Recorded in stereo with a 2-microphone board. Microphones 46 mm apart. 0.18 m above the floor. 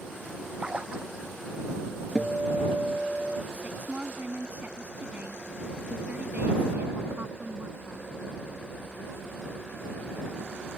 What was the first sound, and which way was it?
A splash, 25° right (ahead or behind).